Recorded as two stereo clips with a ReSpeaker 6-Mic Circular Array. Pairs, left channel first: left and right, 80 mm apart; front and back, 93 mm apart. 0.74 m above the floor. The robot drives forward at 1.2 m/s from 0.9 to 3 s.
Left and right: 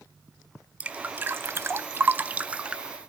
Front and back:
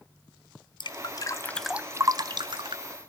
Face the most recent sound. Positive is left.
turn(degrees=-170)